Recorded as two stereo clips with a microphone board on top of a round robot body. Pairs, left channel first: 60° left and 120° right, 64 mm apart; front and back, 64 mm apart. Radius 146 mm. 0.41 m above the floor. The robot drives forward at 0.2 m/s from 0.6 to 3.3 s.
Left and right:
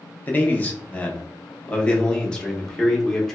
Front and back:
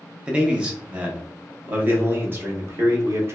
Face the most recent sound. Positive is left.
turn(degrees=140)